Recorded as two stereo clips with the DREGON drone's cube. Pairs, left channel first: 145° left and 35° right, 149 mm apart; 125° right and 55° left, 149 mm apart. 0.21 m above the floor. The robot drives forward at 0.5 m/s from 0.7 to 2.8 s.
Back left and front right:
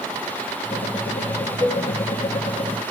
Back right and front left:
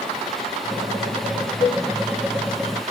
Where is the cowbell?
175° right, 0.6 m.